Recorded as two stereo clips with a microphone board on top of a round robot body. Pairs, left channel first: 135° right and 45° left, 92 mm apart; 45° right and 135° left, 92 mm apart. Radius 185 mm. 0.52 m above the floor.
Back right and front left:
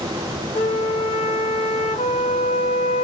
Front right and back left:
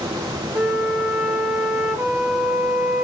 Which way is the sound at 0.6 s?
145° right.